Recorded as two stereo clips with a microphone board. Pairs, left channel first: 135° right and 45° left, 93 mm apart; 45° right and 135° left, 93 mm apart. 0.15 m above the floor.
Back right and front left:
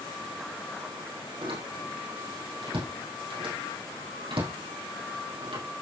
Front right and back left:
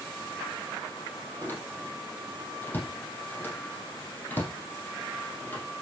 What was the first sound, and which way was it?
A door slam, 25° left.